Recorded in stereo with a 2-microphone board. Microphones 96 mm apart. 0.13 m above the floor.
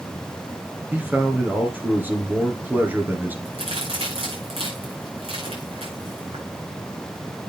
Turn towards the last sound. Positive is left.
turn(degrees=-75)  # may be behind; listen again after turning